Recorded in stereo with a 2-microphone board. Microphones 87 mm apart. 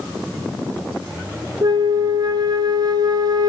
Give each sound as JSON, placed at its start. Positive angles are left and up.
{"t": 1.6, "sound": "a flute", "side_deg": -60, "distance_m": 0.5}